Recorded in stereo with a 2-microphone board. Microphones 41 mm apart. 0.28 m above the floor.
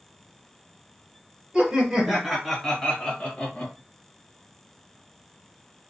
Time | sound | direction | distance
1.5 | laughter | 25° right (ahead or behind) | 1.2 m